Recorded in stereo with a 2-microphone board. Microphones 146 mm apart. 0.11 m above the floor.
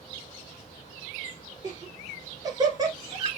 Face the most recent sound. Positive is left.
turn(degrees=-25)  # may be behind; listen again after turning